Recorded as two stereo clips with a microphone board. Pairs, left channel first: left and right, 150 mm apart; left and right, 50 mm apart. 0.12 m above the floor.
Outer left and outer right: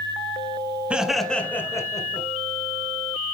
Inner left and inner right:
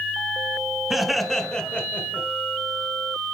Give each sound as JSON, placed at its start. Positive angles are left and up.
{"t": 0.9, "sound": "laughter", "side_deg": -5, "distance_m": 1.1}